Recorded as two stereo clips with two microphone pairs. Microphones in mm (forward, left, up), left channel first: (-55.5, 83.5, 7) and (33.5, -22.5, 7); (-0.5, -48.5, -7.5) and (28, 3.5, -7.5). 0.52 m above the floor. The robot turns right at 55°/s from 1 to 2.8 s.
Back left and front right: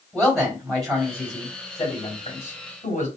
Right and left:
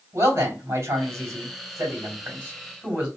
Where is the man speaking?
40° left, 2.5 m; by 3.1 s 140° left, 2.5 m.